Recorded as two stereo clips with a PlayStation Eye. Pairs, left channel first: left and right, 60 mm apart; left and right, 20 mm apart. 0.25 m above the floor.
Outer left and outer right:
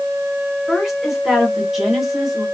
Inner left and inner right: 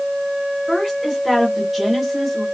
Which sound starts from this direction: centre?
A woman speaking, at 0.7 s.